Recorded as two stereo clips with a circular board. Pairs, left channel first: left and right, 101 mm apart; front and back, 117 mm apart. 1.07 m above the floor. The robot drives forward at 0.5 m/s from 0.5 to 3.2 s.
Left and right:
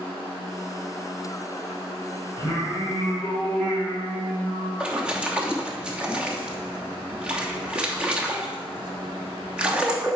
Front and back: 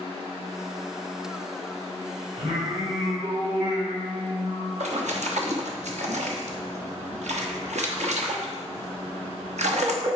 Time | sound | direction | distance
2.4 | singing | 145° left | 3.5 m
4.8 | a splash | 170° right | 1.0 m